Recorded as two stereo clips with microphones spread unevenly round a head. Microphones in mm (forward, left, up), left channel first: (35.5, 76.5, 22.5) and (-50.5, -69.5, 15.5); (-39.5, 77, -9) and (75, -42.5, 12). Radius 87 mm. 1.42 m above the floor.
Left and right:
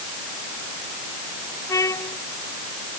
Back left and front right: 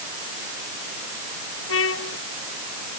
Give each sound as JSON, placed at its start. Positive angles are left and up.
{"t": 1.7, "sound": "a trumpet", "azimuth_deg": 130}